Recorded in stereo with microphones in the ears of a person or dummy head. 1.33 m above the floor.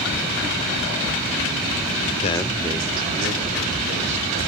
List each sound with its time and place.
2.2 s a man speaking: 35° left (ahead or behind), 0.5 m; by 4.4 s 40° right (ahead or behind), 3 m